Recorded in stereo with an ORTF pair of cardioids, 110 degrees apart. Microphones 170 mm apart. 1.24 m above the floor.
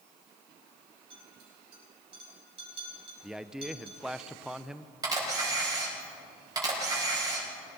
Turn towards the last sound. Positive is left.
turn(degrees=-20)